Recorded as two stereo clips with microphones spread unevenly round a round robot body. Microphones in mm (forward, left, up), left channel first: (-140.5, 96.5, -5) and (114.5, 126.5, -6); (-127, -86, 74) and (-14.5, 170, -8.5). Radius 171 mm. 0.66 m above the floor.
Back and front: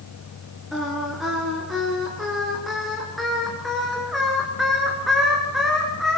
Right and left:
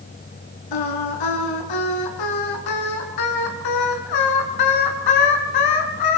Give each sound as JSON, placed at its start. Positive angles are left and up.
{"t": 0.7, "sound": "singing", "azimuth_deg": -85, "distance_m": 4.0}